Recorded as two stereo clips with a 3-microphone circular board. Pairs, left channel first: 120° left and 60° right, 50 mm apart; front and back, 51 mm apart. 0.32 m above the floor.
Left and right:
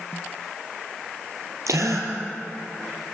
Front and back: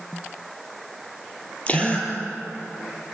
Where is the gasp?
65° right, 5 m.